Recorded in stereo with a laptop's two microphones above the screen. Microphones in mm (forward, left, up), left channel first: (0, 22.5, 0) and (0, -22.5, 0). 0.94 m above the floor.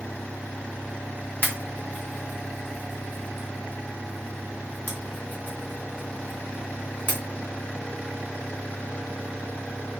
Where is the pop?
40° left (ahead or behind), 1.3 m.